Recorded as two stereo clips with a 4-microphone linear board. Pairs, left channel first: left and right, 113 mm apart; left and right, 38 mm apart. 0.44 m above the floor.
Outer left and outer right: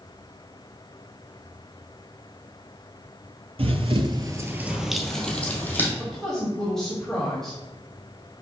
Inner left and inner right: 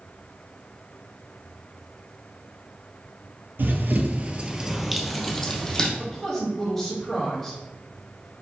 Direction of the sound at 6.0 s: 5° left (ahead or behind).